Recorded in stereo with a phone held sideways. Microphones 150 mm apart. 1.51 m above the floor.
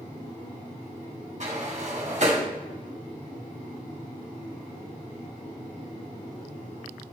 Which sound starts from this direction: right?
A sliding door, at 1.4 s.